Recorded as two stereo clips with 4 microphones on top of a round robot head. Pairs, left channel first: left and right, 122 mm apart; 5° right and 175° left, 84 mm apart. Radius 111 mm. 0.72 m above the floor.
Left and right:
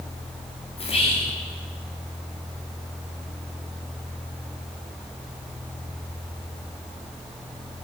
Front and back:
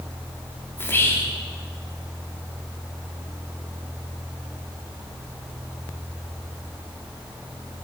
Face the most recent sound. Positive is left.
turn(degrees=60)